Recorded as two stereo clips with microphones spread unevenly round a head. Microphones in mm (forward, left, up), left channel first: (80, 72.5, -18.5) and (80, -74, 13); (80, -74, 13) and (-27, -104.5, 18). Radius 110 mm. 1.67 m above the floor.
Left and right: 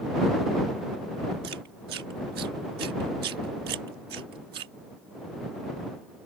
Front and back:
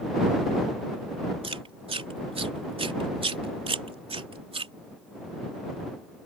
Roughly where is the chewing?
Behind right.